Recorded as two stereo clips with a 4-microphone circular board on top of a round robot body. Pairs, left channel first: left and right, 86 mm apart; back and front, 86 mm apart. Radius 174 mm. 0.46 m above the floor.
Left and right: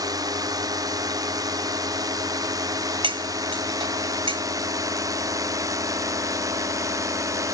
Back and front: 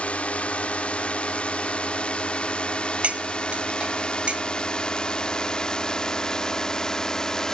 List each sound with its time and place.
0.0 s a drone: 110° right; by 7.5 s 100° right
3.0 s cutlery clinking: 80° right